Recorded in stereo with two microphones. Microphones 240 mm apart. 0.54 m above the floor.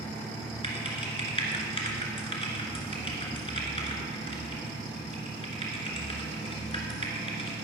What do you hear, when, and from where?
0.6 s typing on a keyboard: 25° left (ahead or behind), 2 m